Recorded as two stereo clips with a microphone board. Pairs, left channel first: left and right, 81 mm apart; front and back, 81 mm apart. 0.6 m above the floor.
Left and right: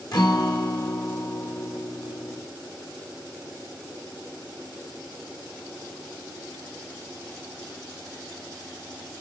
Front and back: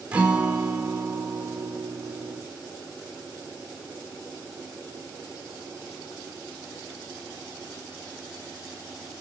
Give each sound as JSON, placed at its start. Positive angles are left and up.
{"t": 0.1, "sound": "a guitar", "azimuth_deg": 105, "distance_m": 1.5}